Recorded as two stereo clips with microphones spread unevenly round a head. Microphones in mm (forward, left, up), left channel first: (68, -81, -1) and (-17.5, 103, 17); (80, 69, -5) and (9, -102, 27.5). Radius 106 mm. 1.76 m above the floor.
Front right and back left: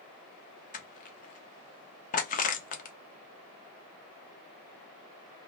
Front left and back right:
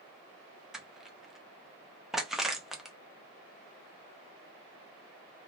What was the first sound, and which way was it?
Crushing, 40° right.